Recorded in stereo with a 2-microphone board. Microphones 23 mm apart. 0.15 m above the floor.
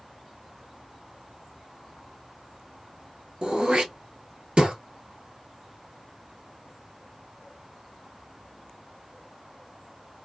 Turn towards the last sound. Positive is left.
turn(degrees=-50)  # may be behind; listen again after turning